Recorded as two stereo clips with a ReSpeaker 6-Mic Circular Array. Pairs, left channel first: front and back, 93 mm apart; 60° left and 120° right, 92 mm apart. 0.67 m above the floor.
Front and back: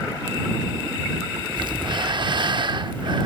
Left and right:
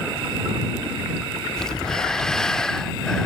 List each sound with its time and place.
1.6 s breathing: 145° left